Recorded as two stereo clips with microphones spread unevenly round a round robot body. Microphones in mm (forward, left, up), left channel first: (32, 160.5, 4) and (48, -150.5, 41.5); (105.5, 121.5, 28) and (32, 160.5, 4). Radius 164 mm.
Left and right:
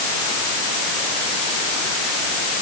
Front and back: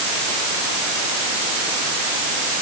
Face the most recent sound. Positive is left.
No sound to turn to.